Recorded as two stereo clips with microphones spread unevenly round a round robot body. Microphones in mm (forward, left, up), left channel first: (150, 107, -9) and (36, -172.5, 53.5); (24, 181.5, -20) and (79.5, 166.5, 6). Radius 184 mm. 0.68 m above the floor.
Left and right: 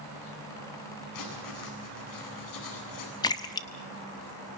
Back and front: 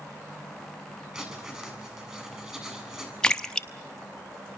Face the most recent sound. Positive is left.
turn(degrees=125)